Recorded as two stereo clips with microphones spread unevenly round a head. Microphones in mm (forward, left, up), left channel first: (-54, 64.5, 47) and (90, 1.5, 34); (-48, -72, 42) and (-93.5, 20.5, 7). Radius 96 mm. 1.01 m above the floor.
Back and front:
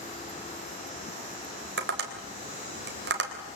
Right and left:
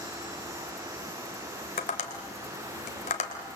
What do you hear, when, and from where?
1.8 s tapping: 35° right, 3 m